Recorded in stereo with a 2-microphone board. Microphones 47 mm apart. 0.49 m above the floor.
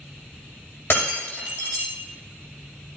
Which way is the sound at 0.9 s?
55° left (ahead or behind).